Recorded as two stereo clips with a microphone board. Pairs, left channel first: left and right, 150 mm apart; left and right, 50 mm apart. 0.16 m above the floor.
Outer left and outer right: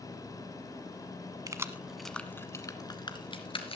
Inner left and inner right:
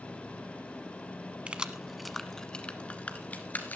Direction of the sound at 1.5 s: 25° right (ahead or behind).